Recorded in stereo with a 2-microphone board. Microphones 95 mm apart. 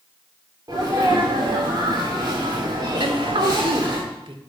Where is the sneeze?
45° right (ahead or behind), 2 m.